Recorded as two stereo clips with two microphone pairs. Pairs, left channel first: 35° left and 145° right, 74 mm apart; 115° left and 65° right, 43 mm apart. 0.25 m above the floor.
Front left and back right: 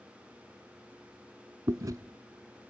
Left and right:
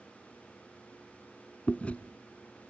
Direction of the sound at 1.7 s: 175° left.